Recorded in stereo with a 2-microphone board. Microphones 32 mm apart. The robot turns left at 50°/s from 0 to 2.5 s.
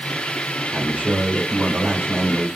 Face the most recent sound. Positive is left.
turn(degrees=-170)